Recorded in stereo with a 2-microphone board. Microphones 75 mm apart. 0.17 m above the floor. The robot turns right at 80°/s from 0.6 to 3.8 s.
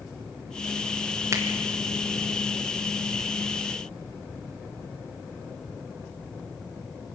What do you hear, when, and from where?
1.3 s a finger snap: 40° right (ahead or behind), 2.5 m; by 1.4 s 45° right (ahead or behind), 2.5 m